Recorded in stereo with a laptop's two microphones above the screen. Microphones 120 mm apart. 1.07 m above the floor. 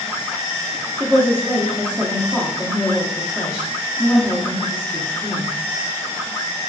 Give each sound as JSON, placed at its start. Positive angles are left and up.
{"t": 1.0, "sound": "a woman speaking", "side_deg": -10, "distance_m": 0.6}